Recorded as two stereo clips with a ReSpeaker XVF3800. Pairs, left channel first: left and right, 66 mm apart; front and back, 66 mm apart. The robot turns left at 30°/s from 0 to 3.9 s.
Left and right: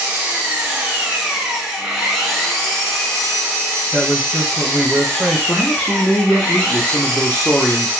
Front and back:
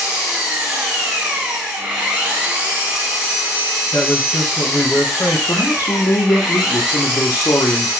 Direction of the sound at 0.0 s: 115° right.